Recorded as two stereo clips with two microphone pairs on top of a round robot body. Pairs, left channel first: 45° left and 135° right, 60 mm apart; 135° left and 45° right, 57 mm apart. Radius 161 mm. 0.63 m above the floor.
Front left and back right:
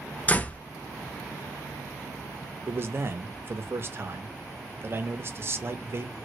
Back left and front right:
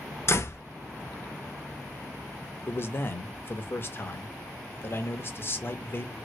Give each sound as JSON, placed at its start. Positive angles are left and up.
{"t": 0.3, "sound": "a door slam", "azimuth_deg": 100, "distance_m": 0.7}
{"t": 2.7, "sound": "a man speaking", "azimuth_deg": 180, "distance_m": 0.8}